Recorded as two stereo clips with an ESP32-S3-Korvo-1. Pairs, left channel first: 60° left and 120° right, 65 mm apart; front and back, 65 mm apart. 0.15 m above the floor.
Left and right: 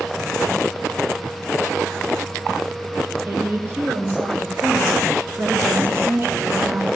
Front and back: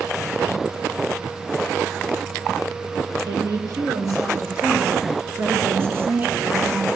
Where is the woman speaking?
175° right, 4 m; by 6.9 s 110° right, 1.7 m.